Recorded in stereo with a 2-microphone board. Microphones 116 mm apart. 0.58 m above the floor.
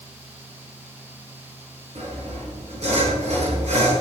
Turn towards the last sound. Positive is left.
turn(degrees=-80)